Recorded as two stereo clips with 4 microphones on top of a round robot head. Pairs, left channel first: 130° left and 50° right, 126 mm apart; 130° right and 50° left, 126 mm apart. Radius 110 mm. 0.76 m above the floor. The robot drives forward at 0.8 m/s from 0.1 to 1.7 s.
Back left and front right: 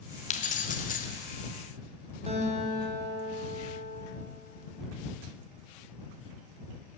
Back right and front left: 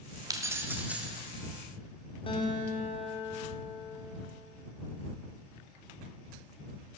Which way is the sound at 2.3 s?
85° right.